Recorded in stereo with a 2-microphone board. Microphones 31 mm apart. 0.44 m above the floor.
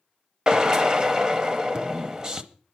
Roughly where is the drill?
Right.